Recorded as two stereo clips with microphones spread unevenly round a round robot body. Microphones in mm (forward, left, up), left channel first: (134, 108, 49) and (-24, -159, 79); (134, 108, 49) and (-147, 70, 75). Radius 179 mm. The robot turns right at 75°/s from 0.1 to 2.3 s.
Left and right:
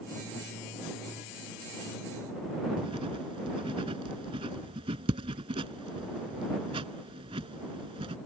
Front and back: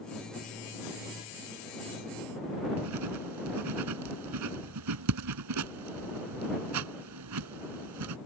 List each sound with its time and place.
2.8 s writing: 165° left